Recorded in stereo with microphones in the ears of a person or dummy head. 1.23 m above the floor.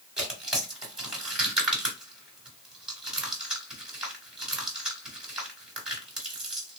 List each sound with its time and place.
0.2 s tearing paper: 5° right (ahead or behind), 1.3 m